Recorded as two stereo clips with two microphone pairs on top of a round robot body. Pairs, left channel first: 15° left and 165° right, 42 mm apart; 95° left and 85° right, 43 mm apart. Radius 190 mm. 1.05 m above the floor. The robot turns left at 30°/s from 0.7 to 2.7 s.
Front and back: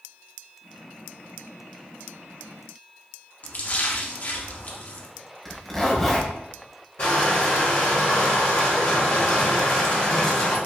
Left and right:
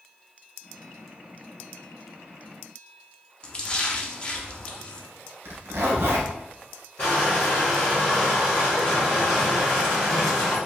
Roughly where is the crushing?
Ahead left.